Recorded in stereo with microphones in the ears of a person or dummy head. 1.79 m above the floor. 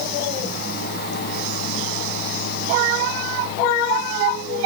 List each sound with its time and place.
Only background noise.